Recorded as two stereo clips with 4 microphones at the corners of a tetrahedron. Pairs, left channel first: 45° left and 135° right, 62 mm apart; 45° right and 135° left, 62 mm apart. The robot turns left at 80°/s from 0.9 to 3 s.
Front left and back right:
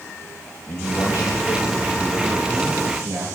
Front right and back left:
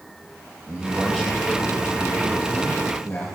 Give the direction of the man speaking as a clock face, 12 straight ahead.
10 o'clock.